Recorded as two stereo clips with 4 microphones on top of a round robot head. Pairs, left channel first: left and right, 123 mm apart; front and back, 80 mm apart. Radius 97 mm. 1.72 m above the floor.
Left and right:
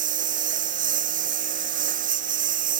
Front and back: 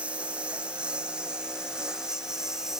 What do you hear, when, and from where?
0.0 s a lawn mower: 100° right; by 2.8 s 95° right